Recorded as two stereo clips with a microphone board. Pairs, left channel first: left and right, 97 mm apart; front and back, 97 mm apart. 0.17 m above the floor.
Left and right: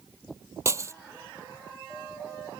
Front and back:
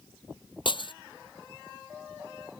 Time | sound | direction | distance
0.7 | breaking glass | 30° right | ?